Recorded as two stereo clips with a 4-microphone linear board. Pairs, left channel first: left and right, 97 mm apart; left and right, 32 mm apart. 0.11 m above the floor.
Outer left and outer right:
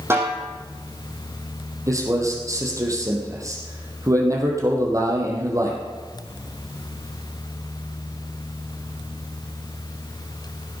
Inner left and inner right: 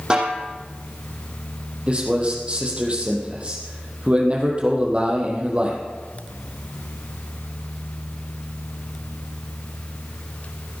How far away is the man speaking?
About 3.5 m.